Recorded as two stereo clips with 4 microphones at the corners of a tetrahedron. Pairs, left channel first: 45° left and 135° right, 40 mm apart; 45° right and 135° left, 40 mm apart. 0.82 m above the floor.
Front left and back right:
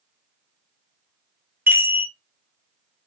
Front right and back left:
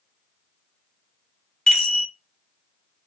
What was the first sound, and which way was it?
A chime, 115° right.